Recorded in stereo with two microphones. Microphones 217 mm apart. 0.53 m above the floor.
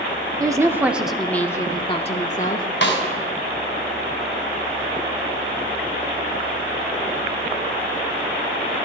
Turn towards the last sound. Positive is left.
turn(degrees=60)  # may be behind; listen again after turning